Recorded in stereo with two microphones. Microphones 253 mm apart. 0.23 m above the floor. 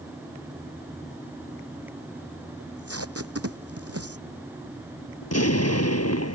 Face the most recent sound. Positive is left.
turn(degrees=75)  # may be behind; listen again after turning